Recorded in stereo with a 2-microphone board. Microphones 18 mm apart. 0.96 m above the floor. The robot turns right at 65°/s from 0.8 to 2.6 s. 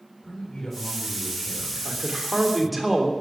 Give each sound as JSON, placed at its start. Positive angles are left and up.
{"t": 0.2, "sound": "a man speaking", "azimuth_deg": 60, "distance_m": 4.0}
{"t": 1.9, "sound": "a man speaking", "azimuth_deg": -50, "distance_m": 3.0}